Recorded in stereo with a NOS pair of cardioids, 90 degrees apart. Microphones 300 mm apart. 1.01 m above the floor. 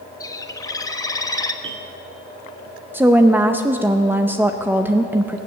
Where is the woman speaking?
5° right, 0.7 m.